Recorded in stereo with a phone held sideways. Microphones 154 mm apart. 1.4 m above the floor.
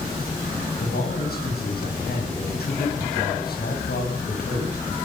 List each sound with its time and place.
0.8 s a man speaking: 80° left, 8.5 m